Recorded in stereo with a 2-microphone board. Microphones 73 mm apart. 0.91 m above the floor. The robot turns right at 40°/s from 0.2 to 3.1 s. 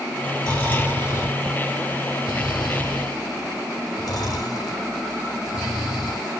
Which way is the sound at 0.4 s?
10° left (ahead or behind).